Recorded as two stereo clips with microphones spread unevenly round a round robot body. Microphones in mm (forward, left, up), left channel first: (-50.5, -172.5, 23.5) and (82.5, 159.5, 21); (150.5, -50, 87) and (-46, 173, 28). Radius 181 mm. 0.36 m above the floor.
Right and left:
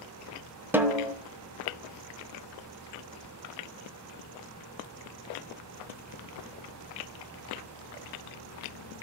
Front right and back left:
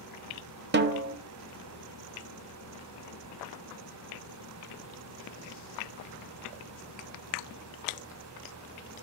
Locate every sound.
0.7 s a snare drum: 150° left, 1.1 m